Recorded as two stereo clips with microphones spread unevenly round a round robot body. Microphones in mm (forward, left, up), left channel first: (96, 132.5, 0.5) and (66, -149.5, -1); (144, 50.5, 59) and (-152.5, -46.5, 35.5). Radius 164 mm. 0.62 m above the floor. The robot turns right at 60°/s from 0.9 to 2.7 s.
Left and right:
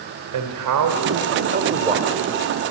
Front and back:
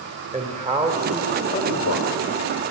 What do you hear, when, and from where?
0.3 s a man speaking: 95° right, 2 m; by 2.2 s 15° right, 2 m